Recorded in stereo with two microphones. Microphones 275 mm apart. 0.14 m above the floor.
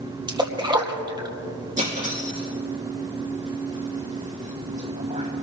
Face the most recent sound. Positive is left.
turn(degrees=-25)  # may be behind; listen again after turning